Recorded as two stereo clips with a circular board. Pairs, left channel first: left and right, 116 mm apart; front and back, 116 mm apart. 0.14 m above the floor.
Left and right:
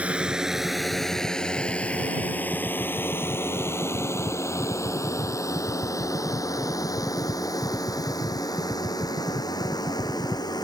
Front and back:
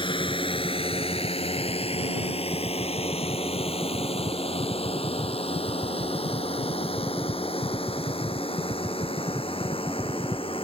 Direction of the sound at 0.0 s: 15° right.